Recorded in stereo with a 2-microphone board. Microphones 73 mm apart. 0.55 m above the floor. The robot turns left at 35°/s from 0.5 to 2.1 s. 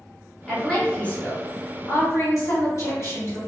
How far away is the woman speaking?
About 1.5 m.